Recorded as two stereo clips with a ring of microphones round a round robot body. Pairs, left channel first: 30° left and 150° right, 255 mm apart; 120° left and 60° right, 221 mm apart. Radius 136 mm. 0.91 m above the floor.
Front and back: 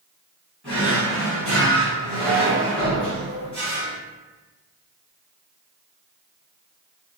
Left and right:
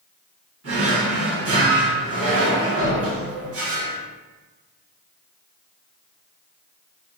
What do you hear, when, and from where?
0.6 s a drawer: 55° right, 1.7 m